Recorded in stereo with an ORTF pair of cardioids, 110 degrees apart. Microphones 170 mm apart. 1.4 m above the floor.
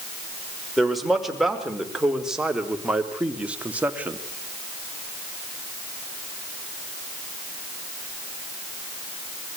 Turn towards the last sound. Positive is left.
turn(degrees=-10)